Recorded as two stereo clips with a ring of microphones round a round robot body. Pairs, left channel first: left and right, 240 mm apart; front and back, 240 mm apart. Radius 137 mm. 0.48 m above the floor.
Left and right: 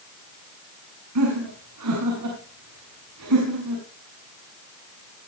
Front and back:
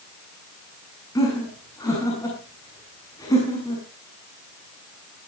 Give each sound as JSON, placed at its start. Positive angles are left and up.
{"t": 1.1, "sound": "laughter", "azimuth_deg": -75, "distance_m": 6.5}